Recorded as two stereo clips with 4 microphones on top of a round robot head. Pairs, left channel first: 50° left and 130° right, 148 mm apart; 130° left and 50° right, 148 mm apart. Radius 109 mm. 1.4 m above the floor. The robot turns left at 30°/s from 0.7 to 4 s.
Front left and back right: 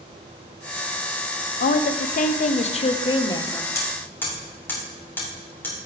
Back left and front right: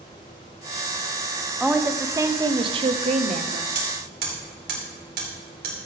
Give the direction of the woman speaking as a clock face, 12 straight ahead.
11 o'clock.